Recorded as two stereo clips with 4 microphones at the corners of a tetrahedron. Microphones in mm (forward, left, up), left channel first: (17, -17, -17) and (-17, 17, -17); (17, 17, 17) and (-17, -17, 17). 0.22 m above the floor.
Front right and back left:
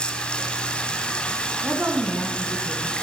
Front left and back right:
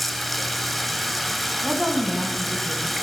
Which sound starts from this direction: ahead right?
Running water, at 0.0 s.